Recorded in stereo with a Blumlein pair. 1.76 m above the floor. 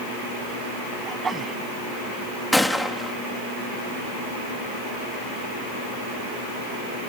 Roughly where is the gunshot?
Ahead.